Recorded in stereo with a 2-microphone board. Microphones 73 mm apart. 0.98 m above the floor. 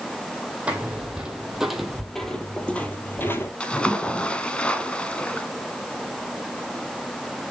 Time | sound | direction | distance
0.7 | footsteps | 15° right (ahead or behind) | 1.9 m
3.6 | a splash | 15° left (ahead or behind) | 1.3 m